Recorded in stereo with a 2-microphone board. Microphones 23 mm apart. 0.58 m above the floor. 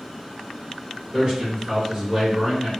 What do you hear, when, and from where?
1.1 s a man speaking: 25° right (ahead or behind), 1.5 m